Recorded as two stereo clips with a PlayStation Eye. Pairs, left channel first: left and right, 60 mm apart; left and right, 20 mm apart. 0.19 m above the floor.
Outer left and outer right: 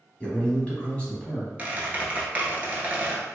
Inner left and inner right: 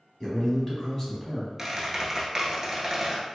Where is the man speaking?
20° left (ahead or behind), 1.0 m.